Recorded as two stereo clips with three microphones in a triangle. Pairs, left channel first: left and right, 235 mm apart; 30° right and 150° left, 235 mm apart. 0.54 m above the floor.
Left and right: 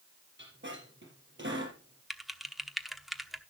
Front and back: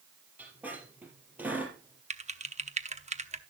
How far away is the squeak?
About 3.5 m.